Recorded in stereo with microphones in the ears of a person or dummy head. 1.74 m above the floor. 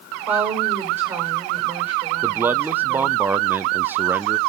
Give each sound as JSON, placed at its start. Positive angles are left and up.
{"t": 0.3, "sound": "a woman speaking", "side_deg": -15, "distance_m": 7.0}
{"t": 2.2, "sound": "a man speaking", "side_deg": -15, "distance_m": 0.6}